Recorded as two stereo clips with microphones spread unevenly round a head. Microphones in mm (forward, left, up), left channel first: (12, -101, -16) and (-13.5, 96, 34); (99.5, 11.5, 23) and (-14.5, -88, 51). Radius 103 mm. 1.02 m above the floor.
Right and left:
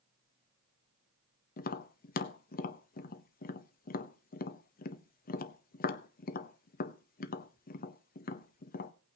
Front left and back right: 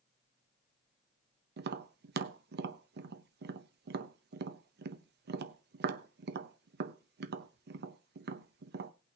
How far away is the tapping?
About 0.7 m.